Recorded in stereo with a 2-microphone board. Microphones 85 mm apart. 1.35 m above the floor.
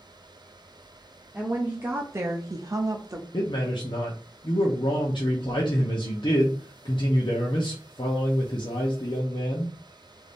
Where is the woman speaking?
15° right (ahead or behind), 0.7 m; by 3.2 s 35° right (ahead or behind), 0.6 m.